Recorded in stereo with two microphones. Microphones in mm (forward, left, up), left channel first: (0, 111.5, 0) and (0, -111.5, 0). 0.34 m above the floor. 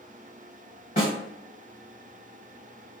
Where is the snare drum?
40° left (ahead or behind), 1.4 m.